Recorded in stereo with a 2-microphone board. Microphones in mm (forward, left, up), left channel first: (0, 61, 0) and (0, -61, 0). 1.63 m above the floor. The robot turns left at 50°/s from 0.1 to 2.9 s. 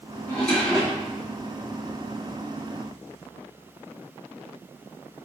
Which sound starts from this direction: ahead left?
A drawer, at 0.3 s.